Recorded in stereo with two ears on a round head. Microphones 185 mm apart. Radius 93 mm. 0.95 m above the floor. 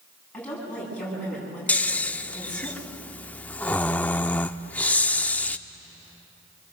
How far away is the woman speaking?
About 9.5 m.